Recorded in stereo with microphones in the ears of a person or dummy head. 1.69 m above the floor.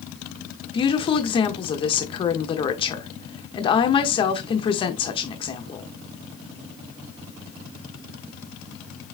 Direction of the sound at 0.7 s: 35° left (ahead or behind).